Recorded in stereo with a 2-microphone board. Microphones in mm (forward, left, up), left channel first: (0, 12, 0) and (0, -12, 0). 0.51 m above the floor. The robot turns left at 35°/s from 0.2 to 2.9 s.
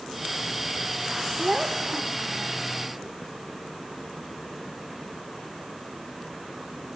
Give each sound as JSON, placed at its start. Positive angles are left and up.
{"t": 1.4, "sound": "a child speaking", "azimuth_deg": -15, "distance_m": 0.8}